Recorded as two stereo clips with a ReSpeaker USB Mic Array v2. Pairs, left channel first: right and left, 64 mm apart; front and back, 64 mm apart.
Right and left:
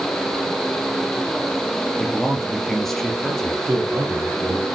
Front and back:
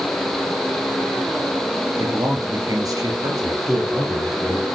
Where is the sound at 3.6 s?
100° left, 3 m.